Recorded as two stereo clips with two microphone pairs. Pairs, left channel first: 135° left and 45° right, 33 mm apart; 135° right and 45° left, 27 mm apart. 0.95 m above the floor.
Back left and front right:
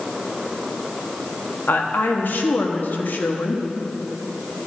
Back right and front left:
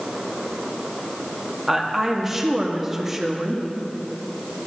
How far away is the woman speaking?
About 1.2 m.